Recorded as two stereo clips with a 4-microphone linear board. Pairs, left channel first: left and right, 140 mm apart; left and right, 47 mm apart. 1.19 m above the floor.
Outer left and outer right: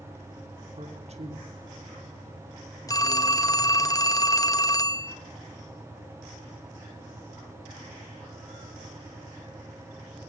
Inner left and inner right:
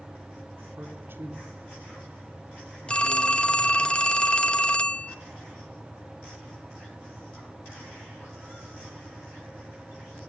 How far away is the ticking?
No ticking in this recording.